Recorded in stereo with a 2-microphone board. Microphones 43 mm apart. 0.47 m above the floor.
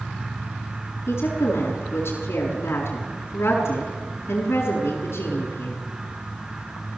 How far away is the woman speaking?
About 6.5 m.